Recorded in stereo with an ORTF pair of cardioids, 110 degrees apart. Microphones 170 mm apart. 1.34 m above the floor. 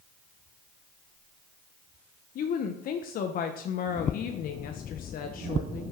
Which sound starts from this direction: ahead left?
A woman speaking, at 2.4 s.